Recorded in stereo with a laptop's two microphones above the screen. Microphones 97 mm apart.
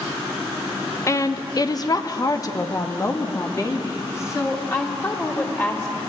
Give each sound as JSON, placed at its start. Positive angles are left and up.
{"t": 1.1, "sound": "a woman speaking", "side_deg": 30, "distance_m": 0.7}